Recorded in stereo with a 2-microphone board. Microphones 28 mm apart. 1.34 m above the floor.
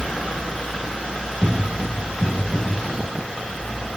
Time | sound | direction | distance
1.4 | footsteps | 15° left (ahead or behind) | 1.5 m